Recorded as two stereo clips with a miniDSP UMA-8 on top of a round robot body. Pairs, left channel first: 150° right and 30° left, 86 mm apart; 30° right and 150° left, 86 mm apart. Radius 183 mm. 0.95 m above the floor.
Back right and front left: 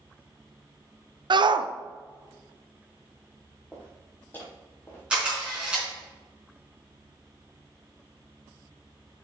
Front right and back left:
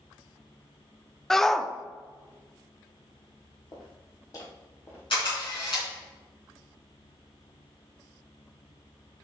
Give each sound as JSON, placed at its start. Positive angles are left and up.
{"t": 1.3, "sound": "a shout", "azimuth_deg": 55, "distance_m": 0.7}
{"t": 3.7, "sound": "footsteps", "azimuth_deg": -70, "distance_m": 2.0}
{"t": 5.1, "sound": "a camera shutter", "azimuth_deg": -50, "distance_m": 3.5}